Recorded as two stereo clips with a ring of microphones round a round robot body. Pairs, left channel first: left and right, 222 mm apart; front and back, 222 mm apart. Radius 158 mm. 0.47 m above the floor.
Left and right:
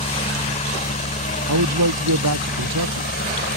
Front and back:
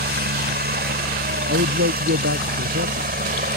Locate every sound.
0.0 s a helicopter: 150° left; by 3.6 s 140° left
1.5 s a man speaking: 120° right